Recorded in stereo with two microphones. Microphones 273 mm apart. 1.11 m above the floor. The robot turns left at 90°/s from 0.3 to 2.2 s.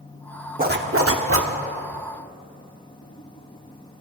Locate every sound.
0.6 s a zipper: 40° right, 1.0 m; by 1.5 s 120° right, 1.0 m